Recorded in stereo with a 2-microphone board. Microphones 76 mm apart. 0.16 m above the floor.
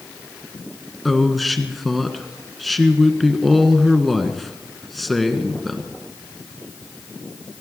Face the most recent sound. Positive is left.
turn(degrees=0)  # may be behind; listen again after turning